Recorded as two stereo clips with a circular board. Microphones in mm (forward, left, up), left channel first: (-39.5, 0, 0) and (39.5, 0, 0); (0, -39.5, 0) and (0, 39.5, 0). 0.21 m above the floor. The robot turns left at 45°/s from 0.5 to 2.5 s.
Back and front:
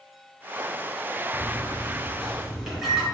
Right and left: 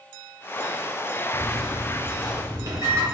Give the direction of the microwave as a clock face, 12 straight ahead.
8 o'clock.